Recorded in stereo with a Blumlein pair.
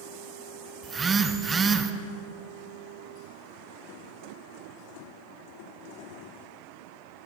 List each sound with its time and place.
0.8 s a phone buzzing: 15° right, 0.5 m